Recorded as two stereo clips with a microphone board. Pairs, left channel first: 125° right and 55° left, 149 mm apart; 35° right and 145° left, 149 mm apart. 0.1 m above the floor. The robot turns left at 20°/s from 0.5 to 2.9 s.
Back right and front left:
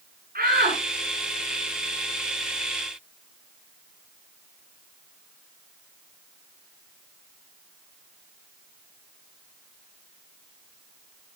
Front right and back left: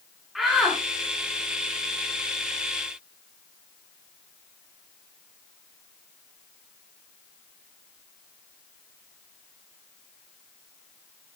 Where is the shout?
55° left, 6.5 m; by 0.8 s 50° left, 6.5 m.